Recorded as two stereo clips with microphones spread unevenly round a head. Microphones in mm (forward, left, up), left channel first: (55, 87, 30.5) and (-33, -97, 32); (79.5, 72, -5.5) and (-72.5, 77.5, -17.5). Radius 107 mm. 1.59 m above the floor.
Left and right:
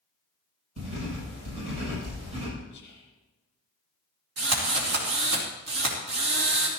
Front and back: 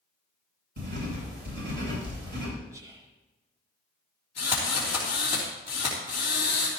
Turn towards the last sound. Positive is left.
turn(degrees=-105)